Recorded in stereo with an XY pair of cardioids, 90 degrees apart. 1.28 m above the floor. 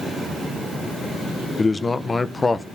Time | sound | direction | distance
1.6 | a man speaking | 30° left | 0.6 m